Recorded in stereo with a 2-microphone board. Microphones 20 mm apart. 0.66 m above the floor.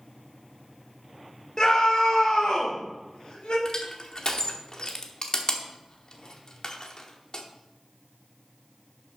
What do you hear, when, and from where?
1.6 s a scream: 40° left (ahead or behind), 1.2 m; by 3.5 s 75° left (ahead or behind), 3.5 m
3.6 s crushing: 45° left (ahead or behind), 1.1 m